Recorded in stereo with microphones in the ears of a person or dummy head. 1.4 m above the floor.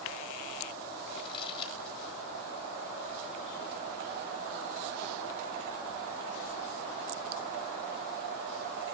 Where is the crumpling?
25° left (ahead or behind), 4 m.